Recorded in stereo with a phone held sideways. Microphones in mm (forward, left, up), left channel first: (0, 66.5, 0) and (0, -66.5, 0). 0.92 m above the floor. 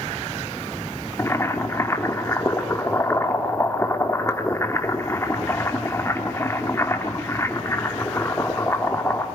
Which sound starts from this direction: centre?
Boiling, at 1.2 s.